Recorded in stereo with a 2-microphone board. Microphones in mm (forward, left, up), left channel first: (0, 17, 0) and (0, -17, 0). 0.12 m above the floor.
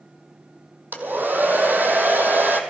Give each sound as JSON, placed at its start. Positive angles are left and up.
{"t": 0.9, "sound": "a hair dryer", "side_deg": -70, "distance_m": 1.3}